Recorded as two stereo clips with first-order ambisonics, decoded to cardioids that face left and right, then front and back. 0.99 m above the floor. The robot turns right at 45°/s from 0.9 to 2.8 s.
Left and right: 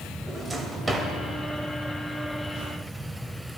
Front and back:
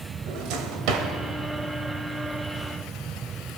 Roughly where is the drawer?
Behind.